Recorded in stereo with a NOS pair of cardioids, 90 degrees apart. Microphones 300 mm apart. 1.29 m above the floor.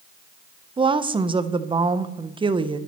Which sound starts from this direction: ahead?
A woman speaking, at 0.8 s.